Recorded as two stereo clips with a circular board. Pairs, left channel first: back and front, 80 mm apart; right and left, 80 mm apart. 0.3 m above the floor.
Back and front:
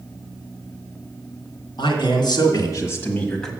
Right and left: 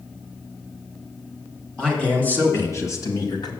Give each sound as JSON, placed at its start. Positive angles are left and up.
{"t": 1.8, "sound": "a man speaking", "azimuth_deg": -170, "distance_m": 2.5}